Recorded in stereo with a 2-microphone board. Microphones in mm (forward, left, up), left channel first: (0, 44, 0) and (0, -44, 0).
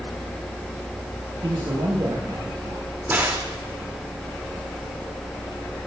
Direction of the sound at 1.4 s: 65° right (ahead or behind).